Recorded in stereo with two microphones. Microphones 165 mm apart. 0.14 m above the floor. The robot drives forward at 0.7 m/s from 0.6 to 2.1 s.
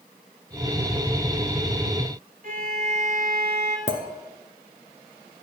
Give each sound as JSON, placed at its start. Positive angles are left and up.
{"t": 2.4, "sound": "a violin", "side_deg": -60, "distance_m": 1.0}
{"t": 3.9, "sound": "a clink", "side_deg": 50, "distance_m": 1.1}